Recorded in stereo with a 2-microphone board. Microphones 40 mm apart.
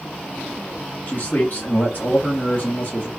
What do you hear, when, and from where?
1.1 s a man speaking: 45° left (ahead or behind), 1.2 m